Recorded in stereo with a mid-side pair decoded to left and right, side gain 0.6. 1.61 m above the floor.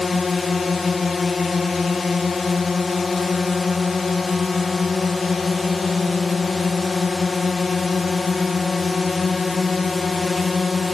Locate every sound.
0.0 s a drone: 25° left